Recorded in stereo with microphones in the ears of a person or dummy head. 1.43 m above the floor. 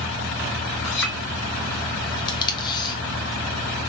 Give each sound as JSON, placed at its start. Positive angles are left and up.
{"t": 0.8, "sound": "a clink", "side_deg": 70, "distance_m": 2.5}
{"t": 2.3, "sound": "tape being pulled", "side_deg": 25, "distance_m": 0.9}